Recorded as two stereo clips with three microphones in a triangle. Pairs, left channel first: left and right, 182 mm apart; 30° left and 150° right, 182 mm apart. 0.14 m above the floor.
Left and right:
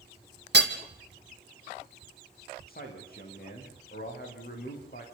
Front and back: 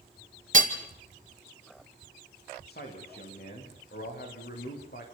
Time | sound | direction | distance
0.5 | hammering | 105° right | 2 m
2.7 | a man speaking | 55° left | 8.5 m